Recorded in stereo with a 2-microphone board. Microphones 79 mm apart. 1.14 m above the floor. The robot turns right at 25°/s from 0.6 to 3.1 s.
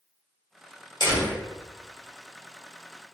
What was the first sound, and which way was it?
A door slam, 70° left (ahead or behind).